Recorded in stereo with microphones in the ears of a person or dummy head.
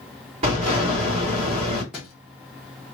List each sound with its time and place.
0.4 s an explosion: 40° right (ahead or behind), 2.5 m
1.9 s a thud: 5° right (ahead or behind), 0.9 m